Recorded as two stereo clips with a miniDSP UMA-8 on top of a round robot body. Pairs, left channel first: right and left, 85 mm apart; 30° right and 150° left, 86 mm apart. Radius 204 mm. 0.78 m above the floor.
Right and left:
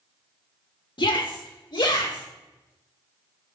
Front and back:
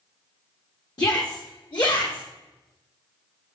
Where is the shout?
70° right, 2 m; by 2.2 s 55° right, 3.5 m.